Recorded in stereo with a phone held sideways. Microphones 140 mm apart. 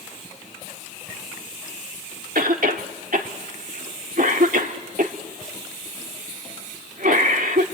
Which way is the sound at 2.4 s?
80° right.